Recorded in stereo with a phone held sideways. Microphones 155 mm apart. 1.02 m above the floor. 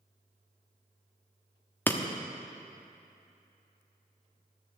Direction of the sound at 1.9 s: 10° left (ahead or behind).